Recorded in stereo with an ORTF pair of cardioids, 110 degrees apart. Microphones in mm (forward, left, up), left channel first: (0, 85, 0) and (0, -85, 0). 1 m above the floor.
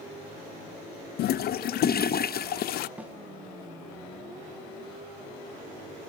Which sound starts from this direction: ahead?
A snare drum, at 3.0 s.